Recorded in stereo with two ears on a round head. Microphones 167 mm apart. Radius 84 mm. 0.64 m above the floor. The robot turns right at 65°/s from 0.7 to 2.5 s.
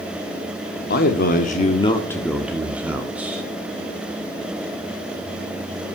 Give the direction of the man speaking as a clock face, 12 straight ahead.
9 o'clock.